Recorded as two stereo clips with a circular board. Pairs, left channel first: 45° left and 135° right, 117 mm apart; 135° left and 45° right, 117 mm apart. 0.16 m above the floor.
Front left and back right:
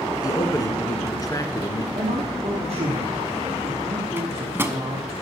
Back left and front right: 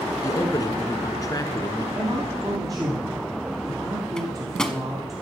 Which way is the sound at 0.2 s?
90° left.